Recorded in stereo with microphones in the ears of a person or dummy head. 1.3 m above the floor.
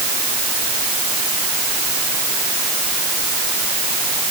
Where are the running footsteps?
No running footsteps in this recording.